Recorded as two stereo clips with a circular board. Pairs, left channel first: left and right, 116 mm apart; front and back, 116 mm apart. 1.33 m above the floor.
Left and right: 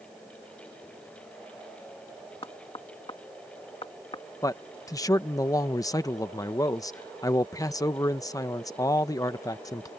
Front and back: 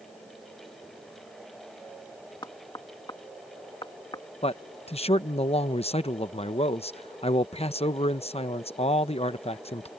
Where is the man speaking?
30° left.